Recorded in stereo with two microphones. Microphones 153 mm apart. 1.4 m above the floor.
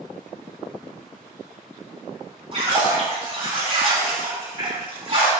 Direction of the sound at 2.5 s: 40° right (ahead or behind).